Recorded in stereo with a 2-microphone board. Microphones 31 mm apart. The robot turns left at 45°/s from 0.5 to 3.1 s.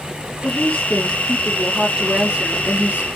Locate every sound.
0.4 s a woman speaking: 45° left, 6 m; by 3.1 s 70° right, 6 m